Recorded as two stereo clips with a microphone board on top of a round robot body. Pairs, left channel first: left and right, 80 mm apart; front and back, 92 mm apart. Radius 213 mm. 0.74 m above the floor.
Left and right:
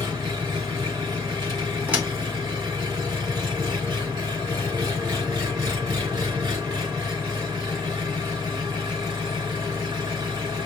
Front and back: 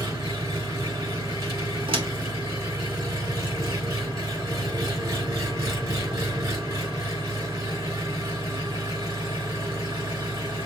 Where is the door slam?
160° right, 1.6 m.